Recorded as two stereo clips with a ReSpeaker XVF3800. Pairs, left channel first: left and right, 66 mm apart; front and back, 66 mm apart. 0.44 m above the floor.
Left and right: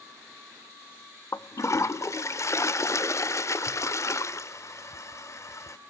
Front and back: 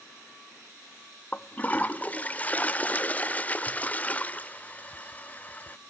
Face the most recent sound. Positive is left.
turn(degrees=60)